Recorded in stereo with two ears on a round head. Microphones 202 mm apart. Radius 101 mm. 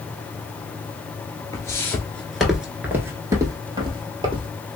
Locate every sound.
1.5 s footsteps: 15° left (ahead or behind), 0.9 m; by 4.5 s 25° right (ahead or behind), 1.4 m